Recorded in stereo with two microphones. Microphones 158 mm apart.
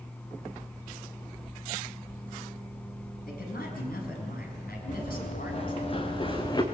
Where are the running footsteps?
45° left (ahead or behind), 4.5 m; by 6.6 s 25° left (ahead or behind), 3 m.